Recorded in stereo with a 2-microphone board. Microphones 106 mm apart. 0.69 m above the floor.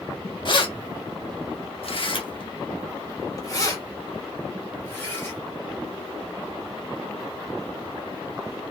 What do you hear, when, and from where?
0.5 s keys jangling: 45° left (ahead or behind), 0.8 m; by 5.4 s 20° left (ahead or behind), 2 m